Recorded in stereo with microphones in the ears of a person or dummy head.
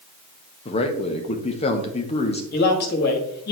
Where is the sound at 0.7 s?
40° left (ahead or behind), 0.9 m.